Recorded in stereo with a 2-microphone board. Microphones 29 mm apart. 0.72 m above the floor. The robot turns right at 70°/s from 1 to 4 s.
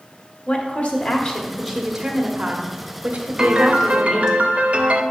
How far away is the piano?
About 0.6 m.